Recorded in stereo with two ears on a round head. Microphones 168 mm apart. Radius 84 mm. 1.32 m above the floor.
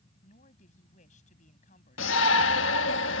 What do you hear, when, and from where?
0.2 s a woman speaking: 40° left (ahead or behind)
2.0 s a shout: 70° left (ahead or behind)